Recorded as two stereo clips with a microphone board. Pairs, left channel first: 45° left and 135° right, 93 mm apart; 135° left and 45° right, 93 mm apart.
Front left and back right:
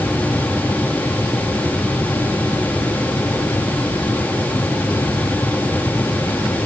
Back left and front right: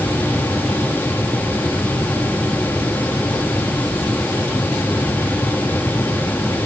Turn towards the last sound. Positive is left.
No sound to turn to.